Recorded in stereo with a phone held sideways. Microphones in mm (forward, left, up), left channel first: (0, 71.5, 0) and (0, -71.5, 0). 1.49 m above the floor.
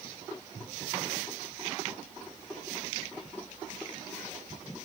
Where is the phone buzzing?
No phone buzzing in this recording.